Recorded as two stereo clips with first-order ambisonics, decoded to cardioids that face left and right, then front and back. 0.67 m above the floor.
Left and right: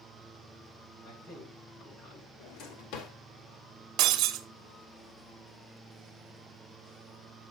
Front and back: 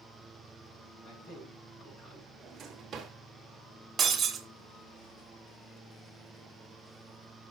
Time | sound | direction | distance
1.0 | a man speaking | 50° left | 6.5 m
2.4 | a drawer | 115° left | 1.4 m
4.0 | breaking glass | 115° right | 0.9 m